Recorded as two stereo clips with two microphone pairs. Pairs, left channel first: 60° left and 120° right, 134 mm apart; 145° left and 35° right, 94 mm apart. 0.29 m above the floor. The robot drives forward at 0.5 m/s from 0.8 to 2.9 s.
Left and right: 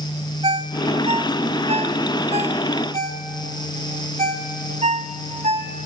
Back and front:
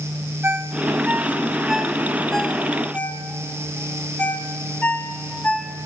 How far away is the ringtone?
About 1.3 m.